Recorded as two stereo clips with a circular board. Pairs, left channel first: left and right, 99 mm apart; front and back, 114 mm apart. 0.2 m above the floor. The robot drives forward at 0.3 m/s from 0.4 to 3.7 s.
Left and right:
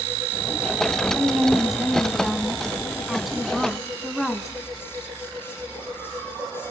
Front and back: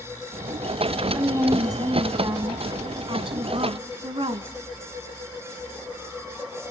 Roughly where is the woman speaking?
Behind.